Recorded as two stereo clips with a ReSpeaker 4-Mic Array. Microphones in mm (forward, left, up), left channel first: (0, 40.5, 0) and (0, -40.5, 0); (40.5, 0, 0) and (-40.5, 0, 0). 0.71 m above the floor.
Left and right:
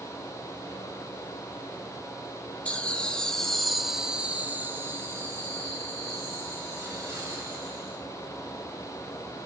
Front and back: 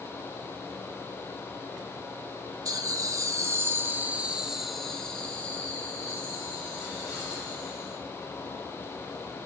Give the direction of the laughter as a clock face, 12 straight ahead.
7 o'clock.